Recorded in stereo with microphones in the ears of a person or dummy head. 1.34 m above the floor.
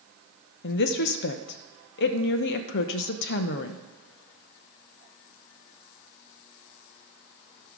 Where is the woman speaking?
65° left (ahead or behind), 0.8 m.